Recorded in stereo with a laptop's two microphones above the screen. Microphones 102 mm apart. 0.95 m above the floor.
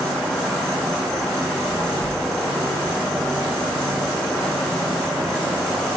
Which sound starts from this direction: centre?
An insect, at 0.0 s.